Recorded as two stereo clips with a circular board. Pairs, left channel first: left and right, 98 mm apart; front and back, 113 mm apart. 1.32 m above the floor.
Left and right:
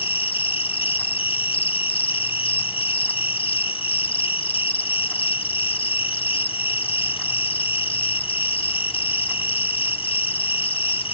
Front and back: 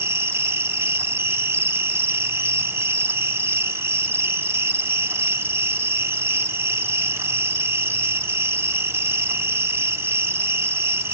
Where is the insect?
110° left, 1.1 m.